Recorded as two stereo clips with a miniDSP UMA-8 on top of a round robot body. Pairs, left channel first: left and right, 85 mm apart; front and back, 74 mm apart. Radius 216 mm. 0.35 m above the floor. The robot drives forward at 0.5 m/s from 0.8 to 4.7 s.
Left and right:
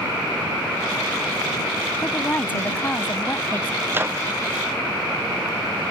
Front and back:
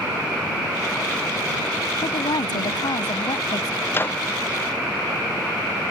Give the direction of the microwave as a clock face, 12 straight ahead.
1 o'clock.